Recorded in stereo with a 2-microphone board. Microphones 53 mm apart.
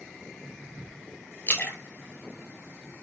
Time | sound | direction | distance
1.5 | a splash | 35° left (ahead or behind) | 1.0 m